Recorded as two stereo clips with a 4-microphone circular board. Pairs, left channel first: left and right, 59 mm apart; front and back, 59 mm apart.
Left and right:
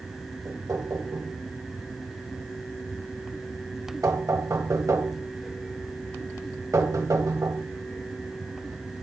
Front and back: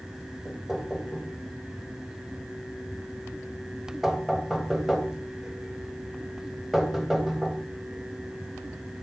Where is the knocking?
90° right, 2.0 m.